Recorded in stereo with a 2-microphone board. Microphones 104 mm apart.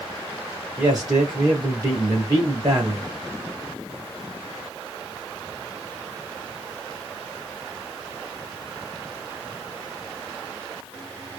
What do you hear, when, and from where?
0.8 s a man speaking: 35° right (ahead or behind), 2 m